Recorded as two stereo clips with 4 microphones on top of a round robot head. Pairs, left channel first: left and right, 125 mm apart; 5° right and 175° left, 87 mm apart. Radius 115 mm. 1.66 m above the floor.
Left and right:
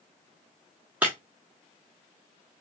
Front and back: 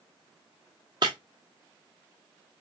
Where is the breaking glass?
160° right, 0.8 m.